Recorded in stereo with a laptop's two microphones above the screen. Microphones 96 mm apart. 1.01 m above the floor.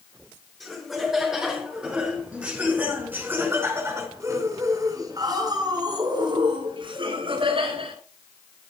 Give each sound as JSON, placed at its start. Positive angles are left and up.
{"t": 0.6, "sound": "laughter", "side_deg": 0, "distance_m": 6.0}